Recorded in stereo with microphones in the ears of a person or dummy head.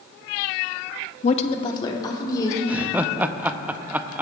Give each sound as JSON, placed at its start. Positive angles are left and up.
{"t": 1.2, "sound": "a woman speaking", "side_deg": 40, "distance_m": 0.8}
{"t": 2.7, "sound": "laughter", "side_deg": -10, "distance_m": 0.6}